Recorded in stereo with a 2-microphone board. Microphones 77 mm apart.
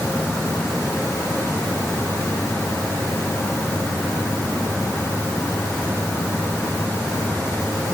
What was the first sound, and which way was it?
Only background noise.